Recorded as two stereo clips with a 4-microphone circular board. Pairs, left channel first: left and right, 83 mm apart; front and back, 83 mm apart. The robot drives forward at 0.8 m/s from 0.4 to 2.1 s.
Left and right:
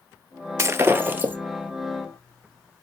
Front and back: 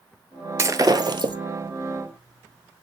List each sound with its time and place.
0.6 s breaking glass: 135° right, 0.7 m; by 1.4 s 160° right, 1.1 m